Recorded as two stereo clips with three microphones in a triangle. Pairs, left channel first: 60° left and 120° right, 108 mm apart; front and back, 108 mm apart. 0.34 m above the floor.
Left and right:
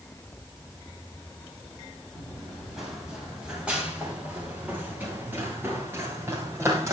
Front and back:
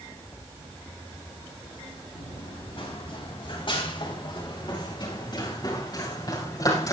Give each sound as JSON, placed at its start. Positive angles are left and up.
{"t": 2.1, "sound": "running footsteps", "azimuth_deg": -30, "distance_m": 5.5}